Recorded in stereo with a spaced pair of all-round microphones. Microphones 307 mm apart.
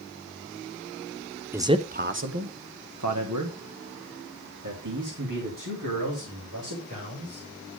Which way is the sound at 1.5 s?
5° right (ahead or behind).